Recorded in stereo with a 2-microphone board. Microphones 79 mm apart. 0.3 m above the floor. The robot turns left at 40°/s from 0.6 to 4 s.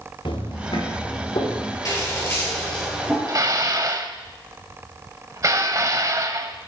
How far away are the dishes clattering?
About 1.0 m.